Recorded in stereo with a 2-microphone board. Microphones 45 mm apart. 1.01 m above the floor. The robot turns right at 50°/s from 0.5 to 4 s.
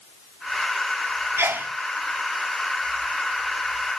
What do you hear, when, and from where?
1.4 s a sneeze: 80° right, 2 m; by 1.7 s 65° right (ahead or behind), 2 m